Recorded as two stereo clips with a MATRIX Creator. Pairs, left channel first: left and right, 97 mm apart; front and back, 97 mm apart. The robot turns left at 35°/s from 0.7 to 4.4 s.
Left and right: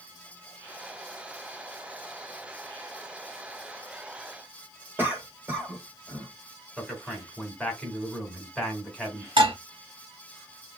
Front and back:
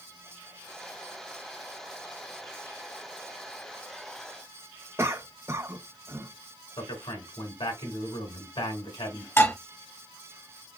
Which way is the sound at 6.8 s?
5° left.